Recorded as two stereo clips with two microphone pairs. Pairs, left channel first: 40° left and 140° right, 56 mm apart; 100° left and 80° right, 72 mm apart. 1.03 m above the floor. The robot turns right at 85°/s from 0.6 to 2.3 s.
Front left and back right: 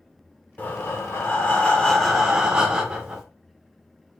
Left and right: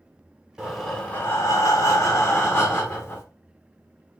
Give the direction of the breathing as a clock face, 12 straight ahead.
12 o'clock.